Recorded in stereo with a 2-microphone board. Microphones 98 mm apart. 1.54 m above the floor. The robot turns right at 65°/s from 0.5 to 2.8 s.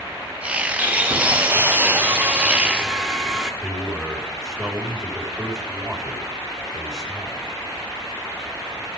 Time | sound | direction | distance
0.8 | sawing | 15° right (ahead or behind) | 1.2 m
3.6 | a man speaking | 10° right (ahead or behind) | 4.5 m